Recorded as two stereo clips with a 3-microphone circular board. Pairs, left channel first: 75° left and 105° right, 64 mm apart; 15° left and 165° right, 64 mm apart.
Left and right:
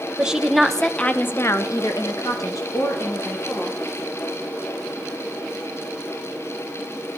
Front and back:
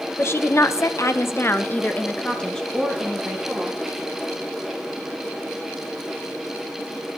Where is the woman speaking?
30° right, 1.1 m; by 3.8 s 100° left, 2 m.